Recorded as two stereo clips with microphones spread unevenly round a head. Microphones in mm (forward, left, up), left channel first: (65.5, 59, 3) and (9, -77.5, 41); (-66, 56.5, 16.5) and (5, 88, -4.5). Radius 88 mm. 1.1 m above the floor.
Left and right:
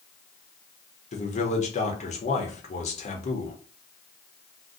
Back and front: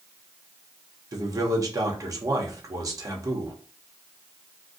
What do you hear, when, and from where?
1.1 s a man speaking: 50° left, 1.1 m